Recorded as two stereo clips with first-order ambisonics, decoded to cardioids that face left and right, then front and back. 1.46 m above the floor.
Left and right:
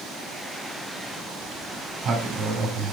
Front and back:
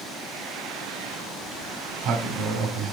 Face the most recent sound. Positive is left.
turn(degrees=-150)